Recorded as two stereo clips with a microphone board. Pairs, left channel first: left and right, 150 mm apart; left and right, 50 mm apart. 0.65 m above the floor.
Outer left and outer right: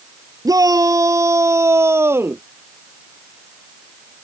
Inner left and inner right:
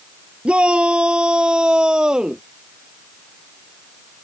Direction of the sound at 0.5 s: 25° right (ahead or behind).